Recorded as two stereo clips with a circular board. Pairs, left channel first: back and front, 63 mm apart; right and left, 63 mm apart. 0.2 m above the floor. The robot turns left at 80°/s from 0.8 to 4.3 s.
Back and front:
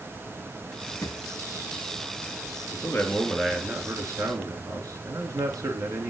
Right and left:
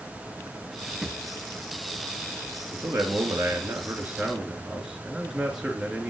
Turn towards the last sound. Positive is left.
turn(degrees=10)